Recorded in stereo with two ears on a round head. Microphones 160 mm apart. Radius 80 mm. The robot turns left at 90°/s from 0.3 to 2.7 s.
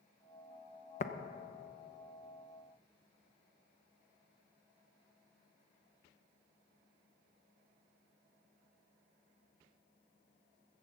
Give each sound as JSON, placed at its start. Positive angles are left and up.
{"t": 1.0, "sound": "tapping", "side_deg": 40, "distance_m": 0.7}